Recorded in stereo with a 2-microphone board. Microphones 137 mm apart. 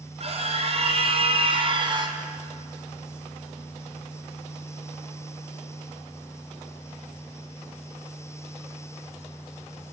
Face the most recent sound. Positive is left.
turn(degrees=-30)  # may be behind; listen again after turning